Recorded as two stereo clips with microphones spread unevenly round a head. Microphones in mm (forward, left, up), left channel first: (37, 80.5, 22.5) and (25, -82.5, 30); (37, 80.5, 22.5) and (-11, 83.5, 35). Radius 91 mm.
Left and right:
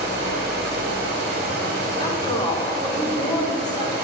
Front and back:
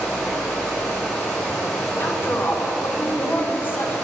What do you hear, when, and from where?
0.0 s running water: 70° right, 1.4 m
2.0 s a woman speaking: 25° left, 1.0 m